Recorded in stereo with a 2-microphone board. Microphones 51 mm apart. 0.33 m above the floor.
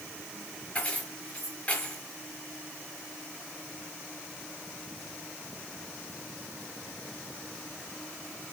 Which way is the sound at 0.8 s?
30° left (ahead or behind).